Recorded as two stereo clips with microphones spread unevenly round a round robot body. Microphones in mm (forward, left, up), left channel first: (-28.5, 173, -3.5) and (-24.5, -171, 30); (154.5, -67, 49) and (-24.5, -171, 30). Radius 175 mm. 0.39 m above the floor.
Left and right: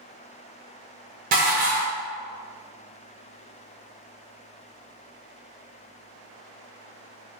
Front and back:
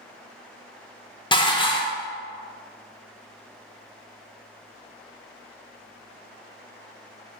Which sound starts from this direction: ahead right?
Dishes clattering, at 1.3 s.